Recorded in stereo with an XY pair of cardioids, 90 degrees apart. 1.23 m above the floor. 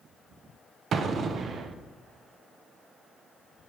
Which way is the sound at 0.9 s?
60° right.